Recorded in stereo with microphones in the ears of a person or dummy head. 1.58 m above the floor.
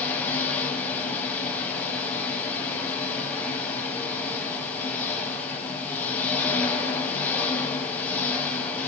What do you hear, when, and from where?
0.0 s an engine running: 10° left (ahead or behind), 7.5 m